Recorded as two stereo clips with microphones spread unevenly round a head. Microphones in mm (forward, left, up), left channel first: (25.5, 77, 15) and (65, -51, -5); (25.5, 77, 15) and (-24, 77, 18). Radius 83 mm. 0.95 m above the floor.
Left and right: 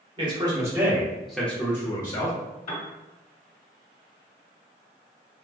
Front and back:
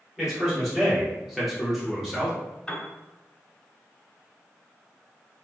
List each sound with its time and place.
0.2 s a man speaking: 95° right, 1.0 m; by 2.4 s 85° left, 0.8 m
2.7 s a piano: 80° left, 1.0 m